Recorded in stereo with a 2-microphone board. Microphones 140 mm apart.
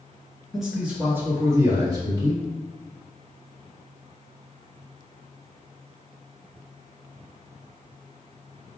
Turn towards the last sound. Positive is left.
turn(degrees=-40)  # may be behind; listen again after turning